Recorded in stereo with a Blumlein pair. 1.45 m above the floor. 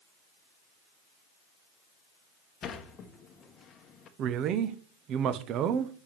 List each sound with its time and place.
2.6 s a sliding door: 25° left, 1.1 m
4.2 s a man speaking: 35° right, 0.9 m